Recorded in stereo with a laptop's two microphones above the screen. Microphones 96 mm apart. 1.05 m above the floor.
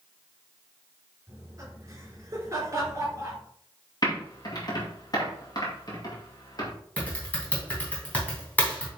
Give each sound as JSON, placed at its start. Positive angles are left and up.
{"t": 1.3, "sound": "laughter", "side_deg": -35, "distance_m": 4.0}
{"t": 4.0, "sound": "typing on a keyboard", "side_deg": 45, "distance_m": 2.0}
{"t": 7.0, "sound": "typing on a keyboard", "side_deg": 15, "distance_m": 2.5}